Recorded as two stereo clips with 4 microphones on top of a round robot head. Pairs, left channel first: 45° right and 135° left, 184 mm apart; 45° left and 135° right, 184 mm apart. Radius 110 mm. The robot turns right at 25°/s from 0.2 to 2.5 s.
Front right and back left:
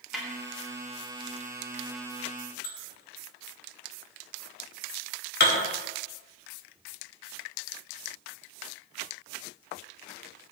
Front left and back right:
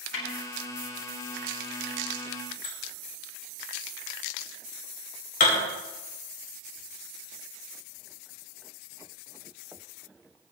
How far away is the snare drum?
About 3.5 m.